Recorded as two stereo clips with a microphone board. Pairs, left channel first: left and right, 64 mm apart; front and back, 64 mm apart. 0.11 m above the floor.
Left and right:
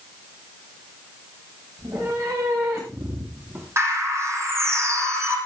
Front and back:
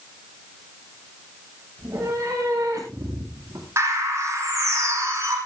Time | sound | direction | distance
1.8 | a cat meowing | 130° right | 10 m
3.8 | a bird | 135° right | 5 m